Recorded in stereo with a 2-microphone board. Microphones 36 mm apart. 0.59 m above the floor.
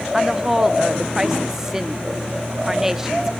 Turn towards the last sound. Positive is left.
turn(degrees=-15)  # may be behind; listen again after turning